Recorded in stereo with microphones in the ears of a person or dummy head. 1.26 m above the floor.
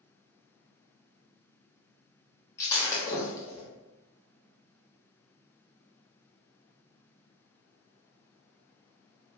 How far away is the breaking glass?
About 1.1 m.